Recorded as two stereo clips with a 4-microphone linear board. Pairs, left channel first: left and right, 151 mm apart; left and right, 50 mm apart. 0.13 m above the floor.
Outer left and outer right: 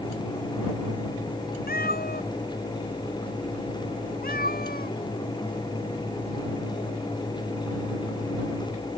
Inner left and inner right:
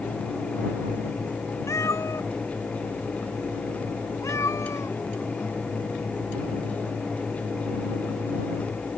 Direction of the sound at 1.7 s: 80° left.